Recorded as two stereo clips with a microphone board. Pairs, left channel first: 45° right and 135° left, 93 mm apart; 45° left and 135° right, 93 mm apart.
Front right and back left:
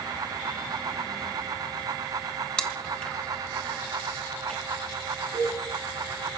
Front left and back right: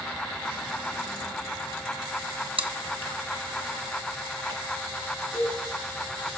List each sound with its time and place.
2.6 s chewing: 125° right, 1.1 m
5.3 s a cowbell: 145° left, 10 m